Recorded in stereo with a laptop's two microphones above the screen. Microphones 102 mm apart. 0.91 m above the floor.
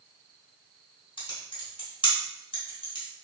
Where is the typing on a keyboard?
50° left (ahead or behind), 1.6 m.